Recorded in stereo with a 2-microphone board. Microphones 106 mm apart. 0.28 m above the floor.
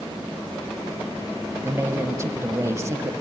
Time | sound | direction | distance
1.6 | a man speaking | 30° right (ahead or behind) | 1.4 m